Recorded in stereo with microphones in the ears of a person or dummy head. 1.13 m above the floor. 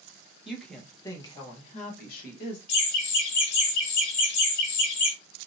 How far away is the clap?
No clap in this recording.